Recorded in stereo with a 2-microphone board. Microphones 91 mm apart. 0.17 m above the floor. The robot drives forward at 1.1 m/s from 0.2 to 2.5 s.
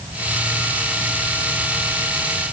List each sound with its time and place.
Only background noise.